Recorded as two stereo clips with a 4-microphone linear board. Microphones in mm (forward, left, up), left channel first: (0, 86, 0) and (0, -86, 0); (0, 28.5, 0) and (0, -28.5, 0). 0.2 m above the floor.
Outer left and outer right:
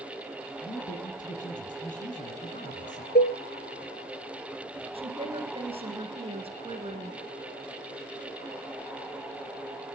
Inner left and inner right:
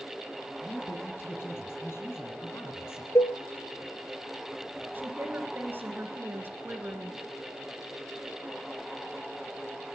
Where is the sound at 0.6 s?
50° left (ahead or behind), 2.5 m.